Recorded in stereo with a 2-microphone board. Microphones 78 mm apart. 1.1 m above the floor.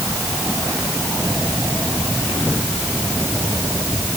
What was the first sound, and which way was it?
Only background noise.